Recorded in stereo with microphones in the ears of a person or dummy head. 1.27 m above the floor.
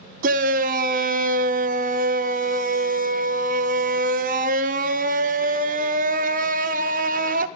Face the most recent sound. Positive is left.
turn(degrees=-40)  # may be behind; listen again after turning